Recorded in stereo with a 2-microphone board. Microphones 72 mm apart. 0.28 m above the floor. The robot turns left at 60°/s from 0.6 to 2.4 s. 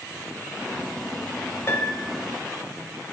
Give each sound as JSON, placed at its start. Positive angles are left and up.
{"t": 1.7, "sound": "a piano", "azimuth_deg": 45, "distance_m": 0.8}